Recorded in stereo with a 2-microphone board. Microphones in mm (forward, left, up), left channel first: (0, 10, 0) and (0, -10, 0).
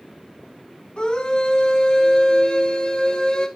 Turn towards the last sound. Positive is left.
turn(degrees=50)  # may be behind; listen again after turning